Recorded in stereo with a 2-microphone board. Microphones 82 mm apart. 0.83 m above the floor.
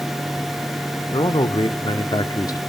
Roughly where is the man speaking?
Left.